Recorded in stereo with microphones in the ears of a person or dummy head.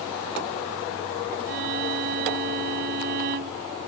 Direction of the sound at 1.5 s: 55° right (ahead or behind).